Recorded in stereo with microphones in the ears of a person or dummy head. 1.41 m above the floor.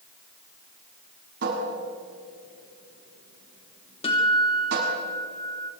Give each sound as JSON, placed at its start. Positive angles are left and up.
{"t": 1.4, "sound": "a cupboard door", "side_deg": -65, "distance_m": 6.5}
{"t": 4.0, "sound": "a guitar", "side_deg": 30, "distance_m": 3.0}